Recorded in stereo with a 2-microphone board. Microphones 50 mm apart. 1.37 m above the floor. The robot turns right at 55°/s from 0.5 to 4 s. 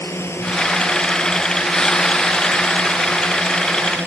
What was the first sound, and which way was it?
A drone, 125° left.